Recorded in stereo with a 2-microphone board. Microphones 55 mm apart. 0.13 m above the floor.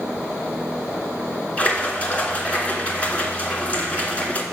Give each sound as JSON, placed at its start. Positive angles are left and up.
{"t": 1.6, "sound": "a splash", "side_deg": 25, "distance_m": 1.9}